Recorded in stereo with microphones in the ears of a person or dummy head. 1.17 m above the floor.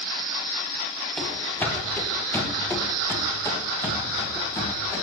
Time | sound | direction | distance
1.2 | running footsteps | 10° left (ahead or behind) | 1.7 m